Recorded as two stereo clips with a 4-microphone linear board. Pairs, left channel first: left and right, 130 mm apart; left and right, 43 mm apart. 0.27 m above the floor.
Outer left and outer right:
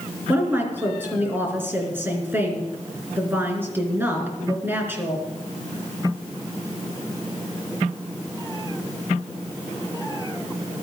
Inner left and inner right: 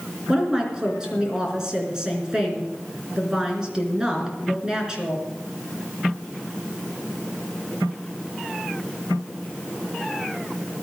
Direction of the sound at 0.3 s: 15° right (ahead or behind).